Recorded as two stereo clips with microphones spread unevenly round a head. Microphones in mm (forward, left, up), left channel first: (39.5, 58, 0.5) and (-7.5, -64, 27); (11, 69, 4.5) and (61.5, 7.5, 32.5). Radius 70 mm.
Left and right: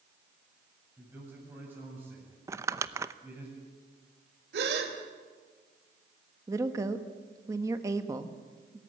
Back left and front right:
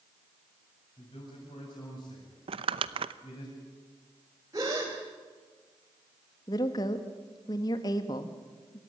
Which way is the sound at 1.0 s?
175° left.